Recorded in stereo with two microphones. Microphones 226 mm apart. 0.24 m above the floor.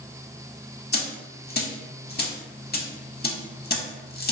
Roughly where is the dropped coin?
Left.